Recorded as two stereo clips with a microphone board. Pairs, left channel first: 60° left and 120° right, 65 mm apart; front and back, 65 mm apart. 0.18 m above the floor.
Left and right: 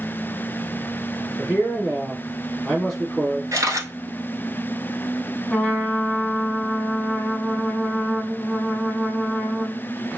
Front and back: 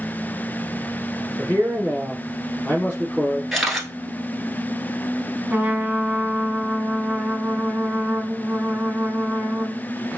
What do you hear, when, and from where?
1.4 s a man speaking: 30° right, 1.1 m
3.5 s a camera shutter: 90° right, 1.0 m
5.5 s a trumpet: 120° left, 0.8 m